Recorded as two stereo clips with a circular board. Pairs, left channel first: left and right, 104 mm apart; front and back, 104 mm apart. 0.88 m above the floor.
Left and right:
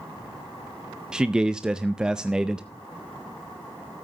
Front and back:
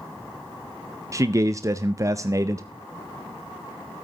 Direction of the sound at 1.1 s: 165° right.